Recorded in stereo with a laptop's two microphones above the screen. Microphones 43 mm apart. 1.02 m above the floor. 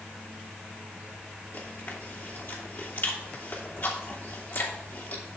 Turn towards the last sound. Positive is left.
turn(degrees=55)  # may be behind; listen again after turning